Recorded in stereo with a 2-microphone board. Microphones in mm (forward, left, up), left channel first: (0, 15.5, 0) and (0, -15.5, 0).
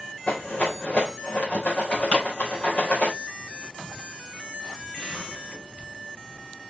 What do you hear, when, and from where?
0.3 s a rattle: 45° left (ahead or behind), 3.5 m
2.1 s a pop: 55° left (ahead or behind), 5.5 m